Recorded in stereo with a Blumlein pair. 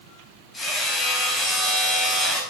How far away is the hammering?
About 8 m.